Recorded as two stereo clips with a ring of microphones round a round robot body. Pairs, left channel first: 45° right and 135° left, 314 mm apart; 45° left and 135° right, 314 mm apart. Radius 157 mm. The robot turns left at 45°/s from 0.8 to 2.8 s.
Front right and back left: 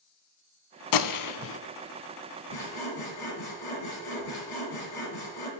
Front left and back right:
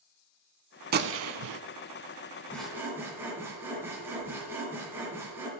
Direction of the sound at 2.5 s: 40° right.